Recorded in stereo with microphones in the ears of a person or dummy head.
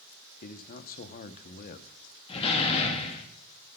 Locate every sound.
0.4 s a man speaking: 45° left (ahead or behind), 0.9 m
2.3 s a door slam: 30° left (ahead or behind), 1.3 m